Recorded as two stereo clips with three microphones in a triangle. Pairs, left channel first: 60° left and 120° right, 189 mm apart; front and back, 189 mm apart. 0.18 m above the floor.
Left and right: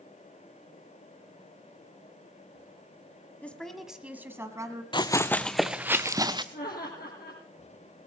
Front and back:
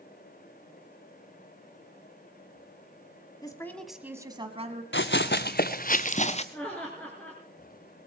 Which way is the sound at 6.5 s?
80° left.